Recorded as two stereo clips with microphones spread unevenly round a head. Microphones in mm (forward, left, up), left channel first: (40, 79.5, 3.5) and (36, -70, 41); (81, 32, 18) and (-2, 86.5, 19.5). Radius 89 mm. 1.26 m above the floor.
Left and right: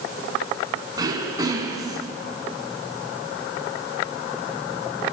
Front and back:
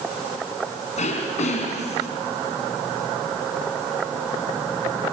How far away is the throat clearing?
About 5.5 m.